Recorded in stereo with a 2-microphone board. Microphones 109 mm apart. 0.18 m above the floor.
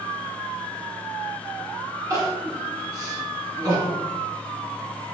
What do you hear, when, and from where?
2.1 s crying: 35° right (ahead or behind), 0.9 m